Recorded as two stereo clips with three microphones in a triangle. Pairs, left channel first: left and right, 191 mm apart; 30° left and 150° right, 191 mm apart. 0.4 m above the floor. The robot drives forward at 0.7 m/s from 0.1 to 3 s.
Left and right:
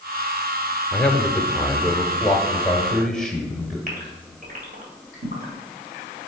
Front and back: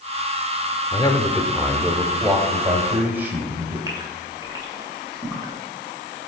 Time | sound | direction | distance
0.9 | a man speaking | 10° left | 0.8 m
3.9 | a gasp | 85° right | 2 m